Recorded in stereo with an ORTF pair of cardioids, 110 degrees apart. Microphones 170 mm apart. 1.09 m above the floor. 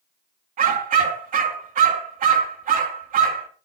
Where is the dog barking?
55° right, 4.5 m.